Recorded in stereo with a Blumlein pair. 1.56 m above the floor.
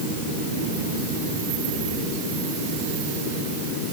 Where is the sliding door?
No sliding door in this recording.